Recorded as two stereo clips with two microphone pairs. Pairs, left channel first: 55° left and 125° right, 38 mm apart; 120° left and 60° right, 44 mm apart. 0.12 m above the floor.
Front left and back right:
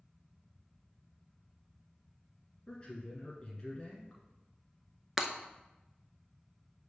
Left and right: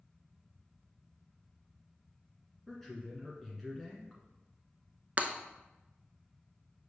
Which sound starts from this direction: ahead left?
A man speaking, at 2.7 s.